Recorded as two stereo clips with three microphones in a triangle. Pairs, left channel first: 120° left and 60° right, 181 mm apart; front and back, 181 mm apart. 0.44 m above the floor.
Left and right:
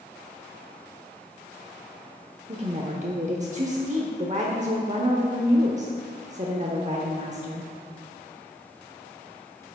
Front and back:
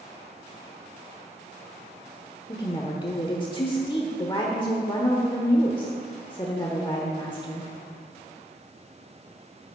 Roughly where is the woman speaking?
Ahead right.